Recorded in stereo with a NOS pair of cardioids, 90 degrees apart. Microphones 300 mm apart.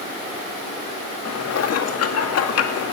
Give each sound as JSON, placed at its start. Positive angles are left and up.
{"t": 1.2, "sound": "dishes clattering", "azimuth_deg": 55, "distance_m": 1.8}